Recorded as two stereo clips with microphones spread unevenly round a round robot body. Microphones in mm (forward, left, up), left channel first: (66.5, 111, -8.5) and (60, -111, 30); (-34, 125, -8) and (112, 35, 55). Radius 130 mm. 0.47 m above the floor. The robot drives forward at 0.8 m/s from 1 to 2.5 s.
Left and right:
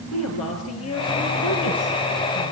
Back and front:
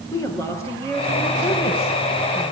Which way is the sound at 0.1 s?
75° left.